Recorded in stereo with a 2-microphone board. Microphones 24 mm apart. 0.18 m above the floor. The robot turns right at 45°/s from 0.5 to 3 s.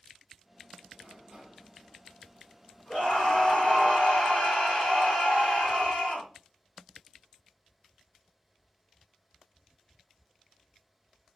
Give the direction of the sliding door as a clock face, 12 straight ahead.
2 o'clock.